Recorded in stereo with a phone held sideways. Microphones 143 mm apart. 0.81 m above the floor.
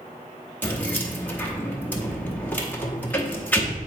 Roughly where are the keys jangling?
Centre.